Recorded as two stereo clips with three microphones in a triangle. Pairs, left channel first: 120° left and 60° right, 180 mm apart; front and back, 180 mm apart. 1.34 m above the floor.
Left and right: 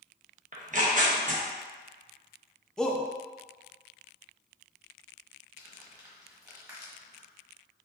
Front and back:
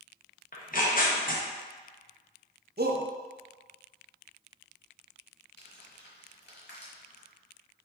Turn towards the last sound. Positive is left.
turn(degrees=10)